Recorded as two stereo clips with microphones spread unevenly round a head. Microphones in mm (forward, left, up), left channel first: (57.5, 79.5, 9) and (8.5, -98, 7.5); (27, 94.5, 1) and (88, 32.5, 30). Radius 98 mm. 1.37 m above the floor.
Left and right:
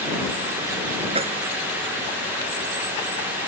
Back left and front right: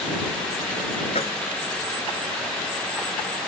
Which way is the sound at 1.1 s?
170° right.